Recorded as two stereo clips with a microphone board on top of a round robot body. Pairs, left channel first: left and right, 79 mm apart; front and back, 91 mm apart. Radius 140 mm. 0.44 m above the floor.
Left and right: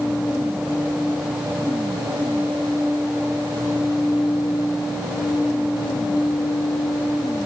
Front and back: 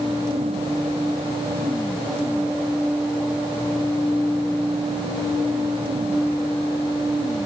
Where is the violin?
I don't hear a violin.